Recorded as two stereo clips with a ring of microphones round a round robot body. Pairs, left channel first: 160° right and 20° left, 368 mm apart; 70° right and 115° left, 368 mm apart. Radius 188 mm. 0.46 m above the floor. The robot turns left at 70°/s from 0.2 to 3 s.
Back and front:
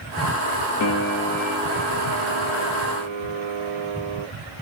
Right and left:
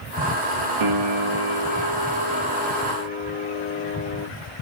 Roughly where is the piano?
Behind left.